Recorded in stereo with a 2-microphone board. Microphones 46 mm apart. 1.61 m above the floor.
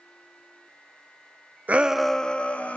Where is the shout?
35° right (ahead or behind), 0.6 m; by 2.8 s 35° left (ahead or behind), 1.5 m.